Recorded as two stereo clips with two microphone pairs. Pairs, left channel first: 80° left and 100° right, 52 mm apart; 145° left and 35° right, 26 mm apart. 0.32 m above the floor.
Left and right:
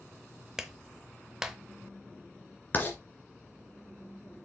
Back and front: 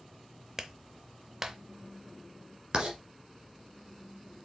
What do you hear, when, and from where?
0.6 s a clap: 50° right, 0.7 m
2.7 s writing: 25° left, 1.9 m